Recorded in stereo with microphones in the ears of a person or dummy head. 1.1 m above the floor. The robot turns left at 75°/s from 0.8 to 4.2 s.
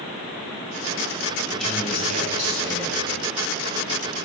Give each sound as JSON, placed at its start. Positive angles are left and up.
{"t": 1.5, "sound": "a man speaking", "azimuth_deg": 10, "distance_m": 6.0}